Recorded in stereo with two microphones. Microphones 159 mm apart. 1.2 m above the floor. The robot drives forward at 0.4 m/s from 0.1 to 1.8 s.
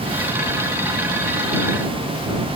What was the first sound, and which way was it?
Only background noise.